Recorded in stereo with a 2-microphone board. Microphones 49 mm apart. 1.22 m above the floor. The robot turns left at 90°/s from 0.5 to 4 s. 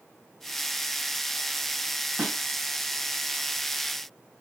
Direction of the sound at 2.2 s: 35° right (ahead or behind).